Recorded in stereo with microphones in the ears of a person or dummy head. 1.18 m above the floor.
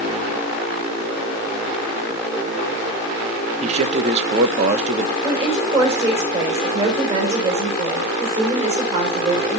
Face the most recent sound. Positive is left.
turn(degrees=-30)  # may be behind; listen again after turning